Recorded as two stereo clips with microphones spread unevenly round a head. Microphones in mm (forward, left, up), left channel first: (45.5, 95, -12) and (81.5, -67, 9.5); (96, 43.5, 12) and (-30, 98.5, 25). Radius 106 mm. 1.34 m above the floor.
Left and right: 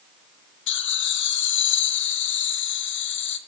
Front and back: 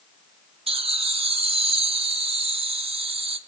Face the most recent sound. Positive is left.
turn(degrees=110)